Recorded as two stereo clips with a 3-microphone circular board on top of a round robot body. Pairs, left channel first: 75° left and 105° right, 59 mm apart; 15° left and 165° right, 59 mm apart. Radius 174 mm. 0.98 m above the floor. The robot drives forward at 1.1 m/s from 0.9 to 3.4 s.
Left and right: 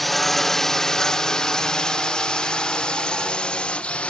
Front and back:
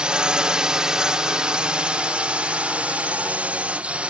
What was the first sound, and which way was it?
A drone, 160° left.